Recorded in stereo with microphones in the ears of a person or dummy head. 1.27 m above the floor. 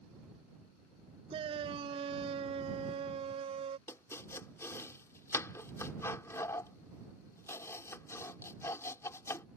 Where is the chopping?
15° left (ahead or behind).